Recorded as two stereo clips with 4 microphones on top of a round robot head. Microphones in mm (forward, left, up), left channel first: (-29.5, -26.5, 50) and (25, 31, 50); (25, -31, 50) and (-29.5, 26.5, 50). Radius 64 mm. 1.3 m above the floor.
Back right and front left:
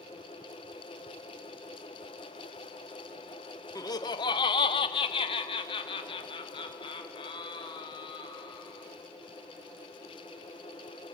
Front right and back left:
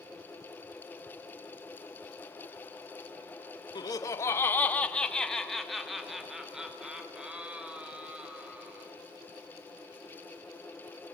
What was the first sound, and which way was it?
Laughter, 85° right.